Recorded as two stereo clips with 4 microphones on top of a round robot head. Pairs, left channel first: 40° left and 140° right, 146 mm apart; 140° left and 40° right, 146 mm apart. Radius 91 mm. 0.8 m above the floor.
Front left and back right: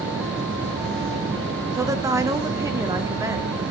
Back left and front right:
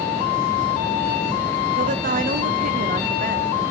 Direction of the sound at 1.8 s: 70° right.